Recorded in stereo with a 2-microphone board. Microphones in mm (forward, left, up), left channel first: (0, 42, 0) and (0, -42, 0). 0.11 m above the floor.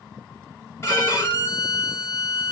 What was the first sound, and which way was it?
A violin, 30° left (ahead or behind).